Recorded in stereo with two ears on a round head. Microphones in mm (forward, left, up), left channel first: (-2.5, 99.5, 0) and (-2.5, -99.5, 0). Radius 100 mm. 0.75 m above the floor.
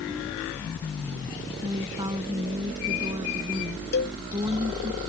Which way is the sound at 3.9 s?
50° left (ahead or behind).